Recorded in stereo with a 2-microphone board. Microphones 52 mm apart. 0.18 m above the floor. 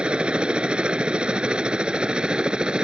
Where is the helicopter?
20° right (ahead or behind); by 2.8 s 15° right (ahead or behind).